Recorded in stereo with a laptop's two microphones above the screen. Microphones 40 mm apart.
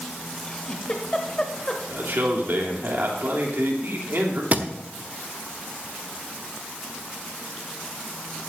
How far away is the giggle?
About 1.2 m.